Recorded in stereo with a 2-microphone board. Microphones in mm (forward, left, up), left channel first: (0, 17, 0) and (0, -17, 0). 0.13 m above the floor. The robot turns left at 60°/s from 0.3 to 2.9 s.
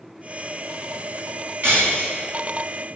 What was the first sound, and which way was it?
Breaking glass, 100° right.